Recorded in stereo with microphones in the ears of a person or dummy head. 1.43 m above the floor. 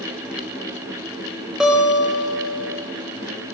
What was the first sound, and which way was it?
A guitar, 5° right (ahead or behind).